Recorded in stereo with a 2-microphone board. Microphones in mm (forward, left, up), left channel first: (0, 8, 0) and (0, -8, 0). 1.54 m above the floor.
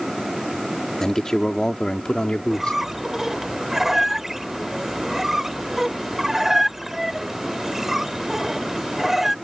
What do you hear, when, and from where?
1.0 s a man speaking: 25° left (ahead or behind); by 2.8 s 60° left (ahead or behind)
2.5 s a squeak: 10° right (ahead or behind)